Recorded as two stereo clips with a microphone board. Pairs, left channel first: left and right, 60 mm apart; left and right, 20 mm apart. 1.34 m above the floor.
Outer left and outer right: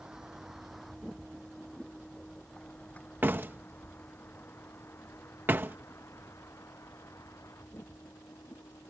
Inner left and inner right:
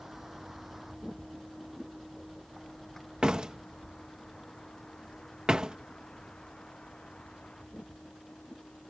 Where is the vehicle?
10° right (ahead or behind); by 8.9 s 60° left (ahead or behind).